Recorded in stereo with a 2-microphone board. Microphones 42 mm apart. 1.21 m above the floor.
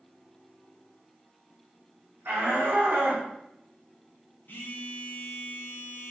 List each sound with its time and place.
2.2 s a shout: 70° right (ahead or behind), 1.6 m; by 3.3 s 55° right (ahead or behind), 1.1 m
4.5 s a phone buzzing: 55° left (ahead or behind), 0.8 m